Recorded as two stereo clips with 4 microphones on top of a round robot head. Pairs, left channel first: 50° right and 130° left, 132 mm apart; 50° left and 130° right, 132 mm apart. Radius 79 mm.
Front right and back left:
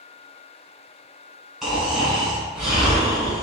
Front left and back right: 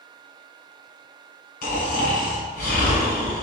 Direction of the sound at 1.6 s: 45° left.